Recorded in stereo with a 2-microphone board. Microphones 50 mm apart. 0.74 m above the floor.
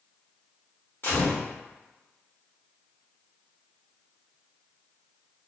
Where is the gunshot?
45° left (ahead or behind), 1.4 m.